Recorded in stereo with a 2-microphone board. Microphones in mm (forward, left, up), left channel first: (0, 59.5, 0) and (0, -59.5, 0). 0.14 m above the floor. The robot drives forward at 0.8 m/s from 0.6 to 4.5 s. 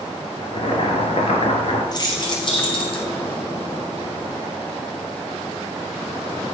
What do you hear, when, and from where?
0.4 s boiling: 50° left (ahead or behind), 1.9 m; by 1.8 s 55° left (ahead or behind), 1.8 m
1.9 s keys jangling: 35° left (ahead or behind), 2 m; by 3.1 s 50° left (ahead or behind), 1.6 m